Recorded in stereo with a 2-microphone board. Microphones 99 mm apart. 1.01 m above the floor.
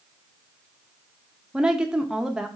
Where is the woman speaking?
5° right (ahead or behind), 0.6 m.